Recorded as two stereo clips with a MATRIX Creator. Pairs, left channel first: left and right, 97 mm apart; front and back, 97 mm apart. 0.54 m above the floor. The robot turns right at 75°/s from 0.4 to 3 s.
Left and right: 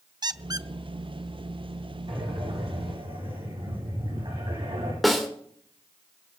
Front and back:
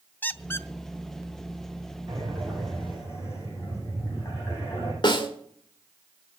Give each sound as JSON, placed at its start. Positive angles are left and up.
{"t": 0.2, "sound": "a squeak", "azimuth_deg": -65, "distance_m": 0.6}
{"t": 2.1, "sound": "breathing", "azimuth_deg": -130, "distance_m": 7.0}
{"t": 5.0, "sound": "a snare drum", "azimuth_deg": 0, "distance_m": 2.0}